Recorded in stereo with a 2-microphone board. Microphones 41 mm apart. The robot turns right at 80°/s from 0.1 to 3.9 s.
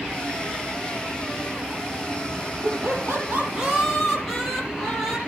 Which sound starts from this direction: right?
Laughter, at 2.6 s.